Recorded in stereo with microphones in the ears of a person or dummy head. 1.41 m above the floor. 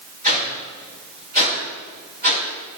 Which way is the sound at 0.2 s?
45° right (ahead or behind).